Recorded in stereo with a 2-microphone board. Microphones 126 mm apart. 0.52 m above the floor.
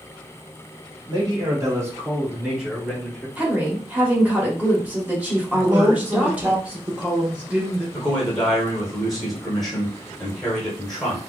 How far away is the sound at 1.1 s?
About 1.6 m.